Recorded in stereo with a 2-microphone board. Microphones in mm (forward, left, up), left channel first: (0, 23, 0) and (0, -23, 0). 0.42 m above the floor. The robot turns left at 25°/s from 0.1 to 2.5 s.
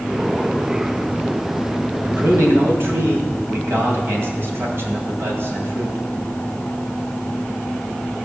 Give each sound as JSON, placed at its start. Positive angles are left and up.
{"t": 2.0, "sound": "a man speaking", "side_deg": -55, "distance_m": 2.5}